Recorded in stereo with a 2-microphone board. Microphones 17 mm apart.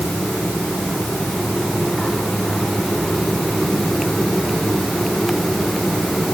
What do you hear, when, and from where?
Only background noise.